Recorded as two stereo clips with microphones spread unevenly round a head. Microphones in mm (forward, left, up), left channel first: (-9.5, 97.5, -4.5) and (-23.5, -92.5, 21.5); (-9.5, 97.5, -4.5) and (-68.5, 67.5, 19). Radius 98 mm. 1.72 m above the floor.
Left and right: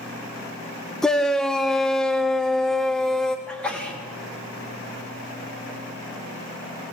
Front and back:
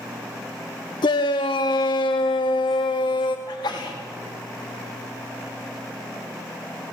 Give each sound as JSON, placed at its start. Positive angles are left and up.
{"t": 1.0, "sound": "a shout", "azimuth_deg": -5, "distance_m": 0.7}
{"t": 3.5, "sound": "a sneeze", "azimuth_deg": 0, "distance_m": 3.5}